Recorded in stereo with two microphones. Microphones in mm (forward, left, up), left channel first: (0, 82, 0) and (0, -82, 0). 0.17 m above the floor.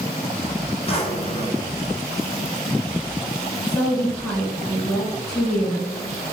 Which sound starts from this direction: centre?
A woman speaking, at 3.7 s.